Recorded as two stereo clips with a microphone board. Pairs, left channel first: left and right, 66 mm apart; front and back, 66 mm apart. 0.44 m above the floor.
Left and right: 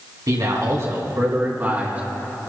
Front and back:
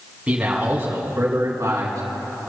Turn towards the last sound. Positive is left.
turn(degrees=-155)